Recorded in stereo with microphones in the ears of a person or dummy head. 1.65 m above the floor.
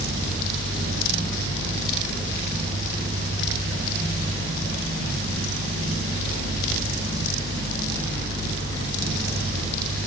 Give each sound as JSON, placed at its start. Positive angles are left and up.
{"t": 0.0, "sound": "a fan", "side_deg": -50, "distance_m": 1.3}